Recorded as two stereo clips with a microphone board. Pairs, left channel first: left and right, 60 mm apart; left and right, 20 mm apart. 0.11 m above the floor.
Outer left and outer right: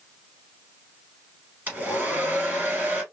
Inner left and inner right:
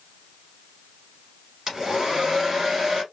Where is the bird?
I don't hear a bird.